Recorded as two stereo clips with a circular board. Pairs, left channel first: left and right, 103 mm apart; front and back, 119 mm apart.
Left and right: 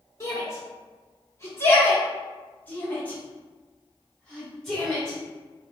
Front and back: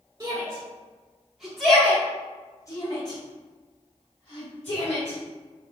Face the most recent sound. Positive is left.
turn(degrees=0)